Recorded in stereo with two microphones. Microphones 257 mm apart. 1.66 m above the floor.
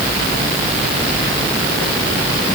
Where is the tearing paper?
I don't hear tearing paper.